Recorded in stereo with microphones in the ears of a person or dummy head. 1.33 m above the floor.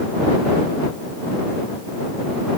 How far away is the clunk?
No clunk in this recording.